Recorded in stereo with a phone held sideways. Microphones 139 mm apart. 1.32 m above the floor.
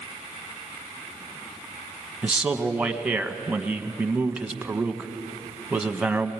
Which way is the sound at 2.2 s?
10° right (ahead or behind).